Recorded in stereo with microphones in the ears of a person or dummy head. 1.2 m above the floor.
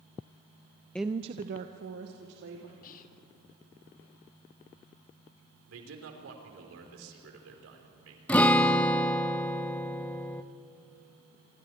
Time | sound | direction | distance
0.9 | a woman speaking | 5° left (ahead or behind) | 0.5 m
2.8 | whispering | 45° left (ahead or behind) | 1.6 m
5.7 | a man speaking | 80° right | 4 m
8.3 | a guitar | 5° left (ahead or behind) | 0.7 m